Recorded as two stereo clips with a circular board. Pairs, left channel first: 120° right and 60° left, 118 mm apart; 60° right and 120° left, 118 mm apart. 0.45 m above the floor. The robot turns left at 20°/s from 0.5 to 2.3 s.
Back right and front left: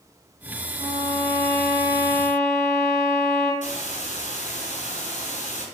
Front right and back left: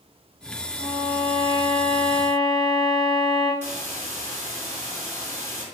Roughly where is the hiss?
Behind right.